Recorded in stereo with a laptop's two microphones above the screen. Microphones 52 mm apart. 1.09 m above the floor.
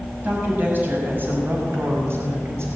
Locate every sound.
0.2 s a woman speaking: 35° right (ahead or behind), 6 m; by 2.7 s 55° right (ahead or behind), 5 m